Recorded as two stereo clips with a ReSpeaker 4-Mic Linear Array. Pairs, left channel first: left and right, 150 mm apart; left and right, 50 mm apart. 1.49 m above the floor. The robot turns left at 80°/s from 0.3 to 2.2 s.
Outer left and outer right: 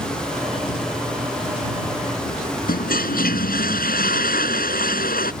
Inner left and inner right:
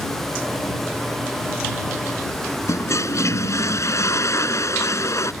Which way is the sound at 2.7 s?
80° left.